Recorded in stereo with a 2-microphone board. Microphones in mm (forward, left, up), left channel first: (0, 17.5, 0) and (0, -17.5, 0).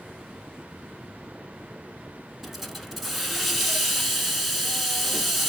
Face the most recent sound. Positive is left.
turn(degrees=-5)  # may be behind; listen again after turning